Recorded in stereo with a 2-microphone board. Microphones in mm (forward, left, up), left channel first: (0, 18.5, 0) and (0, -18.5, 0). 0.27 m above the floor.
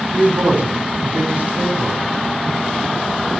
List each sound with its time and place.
0.1 s a man speaking: 55° right (ahead or behind), 2.5 m